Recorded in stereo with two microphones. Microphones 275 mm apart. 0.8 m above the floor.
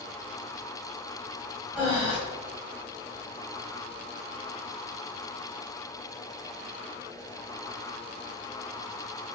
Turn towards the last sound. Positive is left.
turn(degrees=20)  # may be behind; listen again after turning